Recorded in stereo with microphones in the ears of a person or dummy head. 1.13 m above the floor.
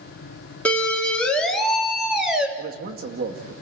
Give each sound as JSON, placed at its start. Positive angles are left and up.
{"t": 0.7, "sound": "a siren", "side_deg": 10, "distance_m": 4.0}
{"t": 2.6, "sound": "a man speaking", "side_deg": -55, "distance_m": 2.0}